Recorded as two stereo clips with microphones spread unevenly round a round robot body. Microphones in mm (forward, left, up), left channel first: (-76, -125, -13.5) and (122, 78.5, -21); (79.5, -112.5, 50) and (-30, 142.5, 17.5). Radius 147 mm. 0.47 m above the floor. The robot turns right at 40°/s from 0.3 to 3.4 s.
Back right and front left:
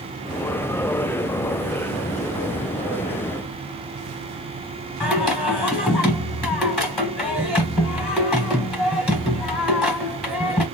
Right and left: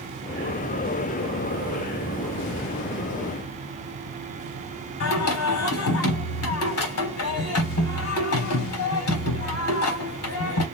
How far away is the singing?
About 1.1 m.